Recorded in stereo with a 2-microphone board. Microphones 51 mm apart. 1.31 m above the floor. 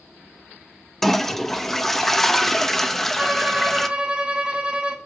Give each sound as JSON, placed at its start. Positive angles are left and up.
{"t": 1.0, "sound": "a toilet flushing", "side_deg": 5, "distance_m": 0.8}
{"t": 3.2, "sound": "a violin", "side_deg": -20, "distance_m": 1.2}